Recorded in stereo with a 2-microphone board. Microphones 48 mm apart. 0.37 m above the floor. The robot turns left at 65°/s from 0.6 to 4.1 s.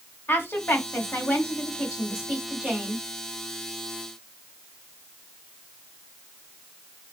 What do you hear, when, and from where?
0.3 s a woman speaking: 55° left (ahead or behind), 1.8 m; by 3.0 s 45° right (ahead or behind), 1.8 m